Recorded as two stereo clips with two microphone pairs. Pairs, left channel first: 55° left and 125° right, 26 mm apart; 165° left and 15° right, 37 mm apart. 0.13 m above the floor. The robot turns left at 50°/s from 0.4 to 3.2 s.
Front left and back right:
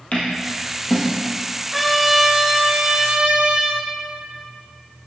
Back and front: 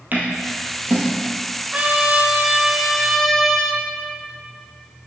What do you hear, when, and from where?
0.1 s scissors: 15° left, 1.9 m; by 1.0 s 15° right, 1.9 m
1.7 s a trumpet: 35° right, 0.6 m; by 3.8 s 110° right, 0.6 m